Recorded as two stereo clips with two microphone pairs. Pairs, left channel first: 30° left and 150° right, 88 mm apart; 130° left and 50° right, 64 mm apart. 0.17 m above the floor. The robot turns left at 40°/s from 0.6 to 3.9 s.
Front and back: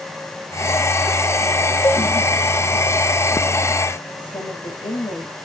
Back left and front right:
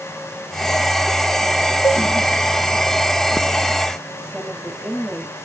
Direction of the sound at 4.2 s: 30° left.